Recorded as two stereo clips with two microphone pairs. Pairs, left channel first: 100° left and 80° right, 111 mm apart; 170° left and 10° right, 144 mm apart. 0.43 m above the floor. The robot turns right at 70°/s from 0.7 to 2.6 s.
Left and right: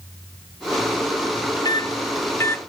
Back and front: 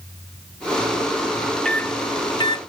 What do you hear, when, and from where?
1.6 s a microwave: 90° left, 0.6 m; by 2.6 s 155° left, 0.6 m